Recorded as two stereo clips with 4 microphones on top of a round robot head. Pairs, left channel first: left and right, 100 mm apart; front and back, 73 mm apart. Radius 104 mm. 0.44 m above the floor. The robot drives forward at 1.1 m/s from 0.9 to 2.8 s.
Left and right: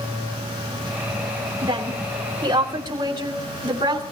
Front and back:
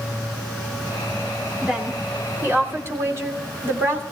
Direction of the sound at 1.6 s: 100° right.